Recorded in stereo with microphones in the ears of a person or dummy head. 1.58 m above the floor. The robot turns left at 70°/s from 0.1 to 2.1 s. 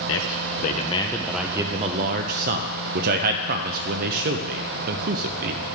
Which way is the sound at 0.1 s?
75° left (ahead or behind).